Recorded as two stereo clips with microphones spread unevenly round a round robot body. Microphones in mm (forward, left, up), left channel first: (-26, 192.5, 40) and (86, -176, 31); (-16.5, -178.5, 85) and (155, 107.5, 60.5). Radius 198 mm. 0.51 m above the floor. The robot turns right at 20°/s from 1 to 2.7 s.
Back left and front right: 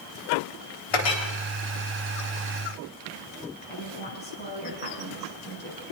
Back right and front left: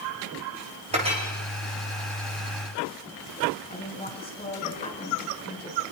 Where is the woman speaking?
170° left, 6.5 m.